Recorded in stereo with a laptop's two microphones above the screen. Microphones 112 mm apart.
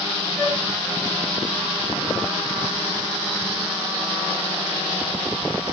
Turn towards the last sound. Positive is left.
turn(degrees=20)  # may be behind; listen again after turning